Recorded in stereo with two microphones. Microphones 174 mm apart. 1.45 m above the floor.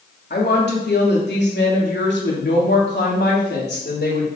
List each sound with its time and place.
0.3 s a woman speaking: 70° left (ahead or behind), 2.5 m